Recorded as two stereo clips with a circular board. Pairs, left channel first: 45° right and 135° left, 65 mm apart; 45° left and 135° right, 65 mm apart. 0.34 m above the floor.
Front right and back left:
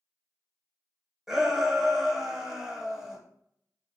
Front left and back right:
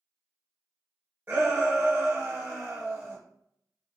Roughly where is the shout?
Behind right.